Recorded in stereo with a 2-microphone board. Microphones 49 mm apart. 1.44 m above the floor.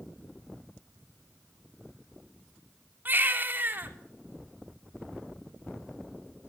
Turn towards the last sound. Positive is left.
turn(degrees=-35)  # may be behind; listen again after turning